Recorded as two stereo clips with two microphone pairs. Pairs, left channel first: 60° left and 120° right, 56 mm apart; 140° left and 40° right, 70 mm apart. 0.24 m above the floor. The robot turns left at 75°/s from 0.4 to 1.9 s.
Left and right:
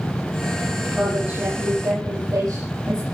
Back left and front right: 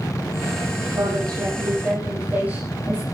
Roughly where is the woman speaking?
Ahead right.